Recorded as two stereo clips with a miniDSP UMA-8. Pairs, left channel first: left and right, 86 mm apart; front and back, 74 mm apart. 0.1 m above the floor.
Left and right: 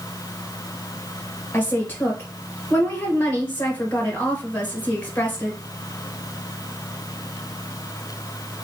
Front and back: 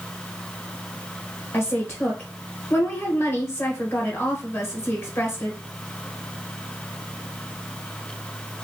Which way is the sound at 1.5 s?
30° left.